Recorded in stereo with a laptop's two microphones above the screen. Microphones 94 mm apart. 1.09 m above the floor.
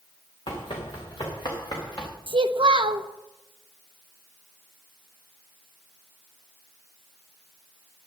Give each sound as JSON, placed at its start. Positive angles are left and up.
{"t": 0.5, "sound": "running footsteps", "side_deg": 60, "distance_m": 4.5}
{"t": 2.3, "sound": "a child speaking", "side_deg": -60, "distance_m": 0.7}